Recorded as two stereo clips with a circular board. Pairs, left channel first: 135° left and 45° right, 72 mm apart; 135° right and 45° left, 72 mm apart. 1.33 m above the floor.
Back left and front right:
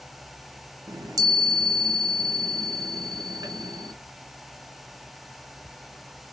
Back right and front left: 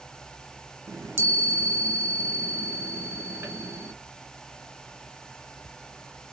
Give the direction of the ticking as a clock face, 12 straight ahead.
No ticking in this recording.